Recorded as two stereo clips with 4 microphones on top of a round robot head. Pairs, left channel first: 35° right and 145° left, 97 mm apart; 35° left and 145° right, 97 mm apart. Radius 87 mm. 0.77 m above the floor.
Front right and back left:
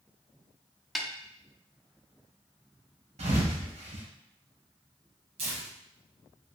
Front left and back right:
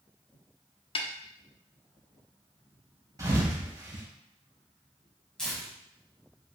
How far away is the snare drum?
About 0.9 m.